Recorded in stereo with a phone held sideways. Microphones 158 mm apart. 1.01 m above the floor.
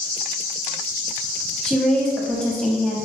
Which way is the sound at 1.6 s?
5° left (ahead or behind).